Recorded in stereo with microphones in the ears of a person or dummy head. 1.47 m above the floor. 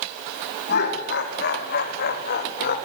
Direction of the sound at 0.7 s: 50° left (ahead or behind).